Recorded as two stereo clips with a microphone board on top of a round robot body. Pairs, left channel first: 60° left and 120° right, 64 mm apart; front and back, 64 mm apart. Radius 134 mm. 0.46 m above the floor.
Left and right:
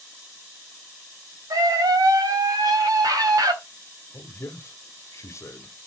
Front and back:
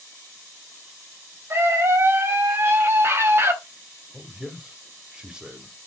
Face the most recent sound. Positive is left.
turn(degrees=100)